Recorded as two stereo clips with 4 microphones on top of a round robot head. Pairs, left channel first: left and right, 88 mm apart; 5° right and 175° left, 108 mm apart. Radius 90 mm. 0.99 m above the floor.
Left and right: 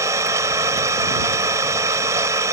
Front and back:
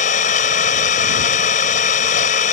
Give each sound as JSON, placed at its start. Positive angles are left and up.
{"t": 0.0, "sound": "an engine running", "azimuth_deg": -20}